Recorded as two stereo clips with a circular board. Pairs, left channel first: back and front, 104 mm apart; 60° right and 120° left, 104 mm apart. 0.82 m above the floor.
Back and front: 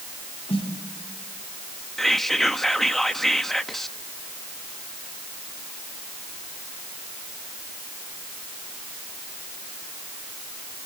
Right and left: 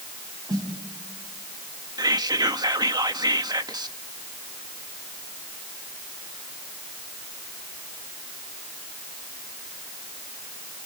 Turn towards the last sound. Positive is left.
turn(degrees=95)